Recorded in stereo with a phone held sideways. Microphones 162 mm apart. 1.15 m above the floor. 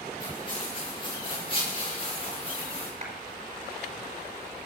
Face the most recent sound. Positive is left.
turn(degrees=-45)  # may be behind; listen again after turning